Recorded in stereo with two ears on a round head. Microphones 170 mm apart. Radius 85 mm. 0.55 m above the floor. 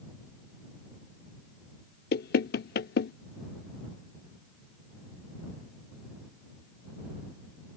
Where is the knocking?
55° left (ahead or behind).